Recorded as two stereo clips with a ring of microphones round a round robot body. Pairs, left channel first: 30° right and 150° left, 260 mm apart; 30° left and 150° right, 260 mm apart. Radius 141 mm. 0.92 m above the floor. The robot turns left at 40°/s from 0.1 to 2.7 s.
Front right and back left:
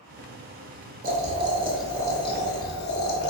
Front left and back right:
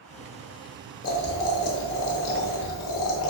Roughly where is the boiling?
Left.